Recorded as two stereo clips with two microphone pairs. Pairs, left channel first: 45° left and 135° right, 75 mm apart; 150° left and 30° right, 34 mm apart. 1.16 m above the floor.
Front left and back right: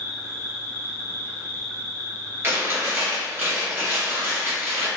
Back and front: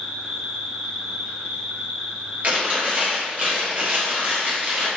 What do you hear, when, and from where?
0.0 s an insect: 5° right, 1.0 m
2.4 s chewing: 75° right, 0.9 m